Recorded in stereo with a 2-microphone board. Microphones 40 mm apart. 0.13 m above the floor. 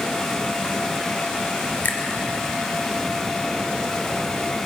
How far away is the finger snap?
About 2.5 m.